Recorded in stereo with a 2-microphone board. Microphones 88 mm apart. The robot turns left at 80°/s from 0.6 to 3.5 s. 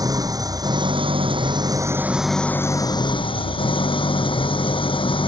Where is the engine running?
45° right; by 5.3 s 80° left.